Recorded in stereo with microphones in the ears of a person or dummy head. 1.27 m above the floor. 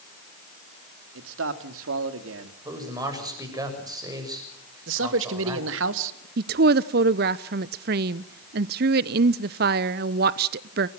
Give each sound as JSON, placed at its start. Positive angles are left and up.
{"t": 1.1, "sound": "a man speaking", "side_deg": -80, "distance_m": 2.5}
{"t": 2.6, "sound": "a man speaking", "side_deg": -20, "distance_m": 7.0}
{"t": 4.9, "sound": "a man speaking", "side_deg": -75, "distance_m": 2.0}
{"t": 6.4, "sound": "a woman speaking", "side_deg": -50, "distance_m": 0.7}